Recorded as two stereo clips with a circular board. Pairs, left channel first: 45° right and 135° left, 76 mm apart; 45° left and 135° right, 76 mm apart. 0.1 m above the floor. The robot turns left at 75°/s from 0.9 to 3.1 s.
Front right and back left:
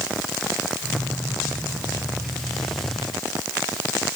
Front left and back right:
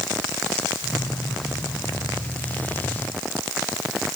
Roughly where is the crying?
I don't hear crying.